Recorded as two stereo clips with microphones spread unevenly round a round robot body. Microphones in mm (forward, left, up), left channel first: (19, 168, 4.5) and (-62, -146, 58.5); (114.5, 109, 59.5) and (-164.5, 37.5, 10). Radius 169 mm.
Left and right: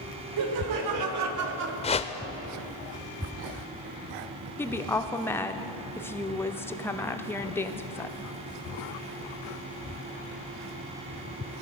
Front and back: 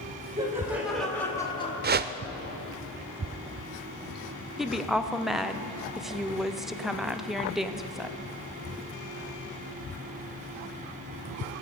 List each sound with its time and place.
0.4 s laughter: 90° right, 2 m; by 1.7 s 55° right, 1.2 m
1.8 s a whoosh: 145° left, 0.7 m
4.6 s a woman speaking: 130° left, 0.7 m